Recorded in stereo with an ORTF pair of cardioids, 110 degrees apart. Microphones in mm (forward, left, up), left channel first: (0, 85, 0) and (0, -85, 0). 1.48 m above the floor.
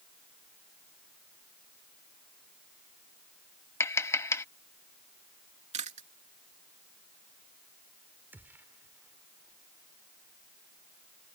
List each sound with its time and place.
3.8 s tapping: 15° left
5.7 s chewing: 40° right
8.3 s a gunshot: 10° right